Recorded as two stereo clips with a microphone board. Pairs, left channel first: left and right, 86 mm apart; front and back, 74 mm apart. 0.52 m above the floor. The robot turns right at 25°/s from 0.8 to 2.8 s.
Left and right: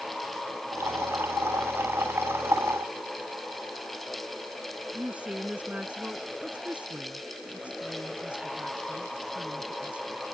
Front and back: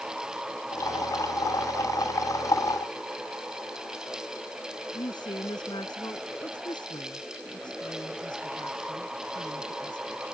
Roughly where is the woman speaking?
Ahead.